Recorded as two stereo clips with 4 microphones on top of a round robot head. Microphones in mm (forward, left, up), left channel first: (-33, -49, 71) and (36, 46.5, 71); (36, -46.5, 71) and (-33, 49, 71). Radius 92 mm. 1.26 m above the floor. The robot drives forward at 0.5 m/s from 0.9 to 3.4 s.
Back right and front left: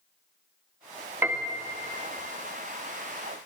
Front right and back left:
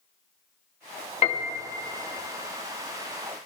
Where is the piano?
20° right, 0.9 m; by 1.7 s 25° right, 0.7 m.